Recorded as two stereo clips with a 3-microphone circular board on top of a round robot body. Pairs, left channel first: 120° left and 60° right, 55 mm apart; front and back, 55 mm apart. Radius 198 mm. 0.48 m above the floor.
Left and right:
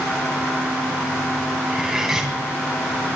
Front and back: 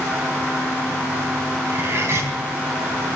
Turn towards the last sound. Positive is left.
turn(degrees=-140)